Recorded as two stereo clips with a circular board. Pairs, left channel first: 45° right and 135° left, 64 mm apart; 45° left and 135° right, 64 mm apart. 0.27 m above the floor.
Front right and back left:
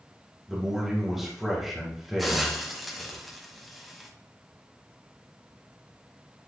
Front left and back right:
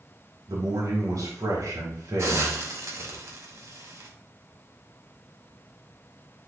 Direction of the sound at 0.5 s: 140° right.